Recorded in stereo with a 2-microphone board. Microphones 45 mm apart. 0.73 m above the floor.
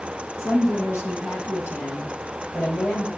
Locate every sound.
0.4 s a woman speaking: 85° left, 8 m; by 3.1 s 80° left, 6 m